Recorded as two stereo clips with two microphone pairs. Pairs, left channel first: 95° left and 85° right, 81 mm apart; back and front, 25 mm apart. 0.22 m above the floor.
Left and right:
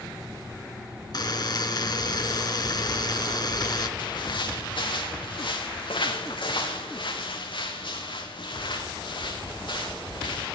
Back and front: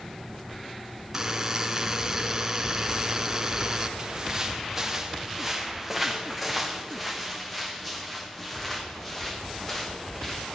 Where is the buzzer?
70° left, 3 m.